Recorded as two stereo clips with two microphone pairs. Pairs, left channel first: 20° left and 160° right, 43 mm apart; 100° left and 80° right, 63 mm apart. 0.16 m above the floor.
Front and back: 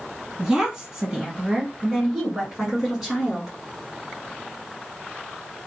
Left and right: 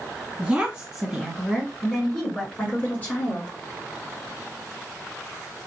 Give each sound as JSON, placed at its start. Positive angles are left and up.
{"t": 0.4, "sound": "a woman speaking", "azimuth_deg": -115, "distance_m": 1.5}